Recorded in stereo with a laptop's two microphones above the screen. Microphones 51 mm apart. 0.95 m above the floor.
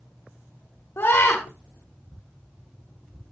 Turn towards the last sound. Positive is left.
turn(degrees=65)  # may be behind; listen again after turning